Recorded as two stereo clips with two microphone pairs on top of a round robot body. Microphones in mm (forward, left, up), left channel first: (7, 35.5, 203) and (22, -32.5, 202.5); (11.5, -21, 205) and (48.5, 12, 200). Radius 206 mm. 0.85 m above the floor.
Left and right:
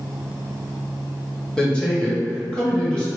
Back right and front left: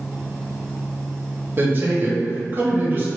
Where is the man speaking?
25° left, 1.2 m.